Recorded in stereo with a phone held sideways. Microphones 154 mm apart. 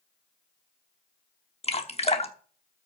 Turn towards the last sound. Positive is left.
turn(degrees=40)  # may be behind; listen again after turning